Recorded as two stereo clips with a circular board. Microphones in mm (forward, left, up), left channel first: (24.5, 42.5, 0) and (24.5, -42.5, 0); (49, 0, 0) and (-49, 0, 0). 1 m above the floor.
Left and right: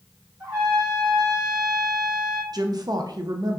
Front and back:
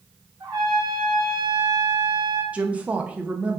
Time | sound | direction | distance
0.4 | a trumpet | 130° right | 2 m
2.5 | a woman speaking | 110° right | 0.6 m